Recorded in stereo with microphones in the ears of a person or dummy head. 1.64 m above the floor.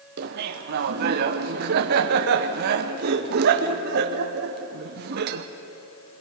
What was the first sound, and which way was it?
Laughter, 55° right (ahead or behind).